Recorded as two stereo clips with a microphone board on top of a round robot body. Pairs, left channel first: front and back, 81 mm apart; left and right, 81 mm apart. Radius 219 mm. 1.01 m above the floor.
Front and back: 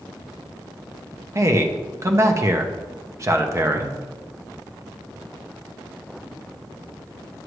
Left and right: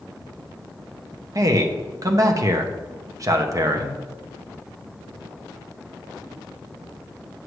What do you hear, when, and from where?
1.4 s a man speaking: 130° right, 1.1 m